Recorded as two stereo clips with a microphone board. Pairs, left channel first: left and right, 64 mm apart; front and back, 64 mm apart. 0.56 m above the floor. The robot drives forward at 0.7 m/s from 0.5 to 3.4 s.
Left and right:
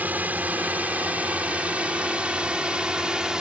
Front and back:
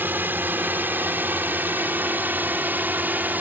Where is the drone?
140° right; by 3.4 s 160° right.